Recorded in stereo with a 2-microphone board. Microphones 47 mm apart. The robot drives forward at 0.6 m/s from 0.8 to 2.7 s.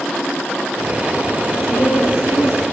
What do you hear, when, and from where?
1.5 s a woman speaking: 80° left, 4.5 m; by 2.6 s 85° left, 4.5 m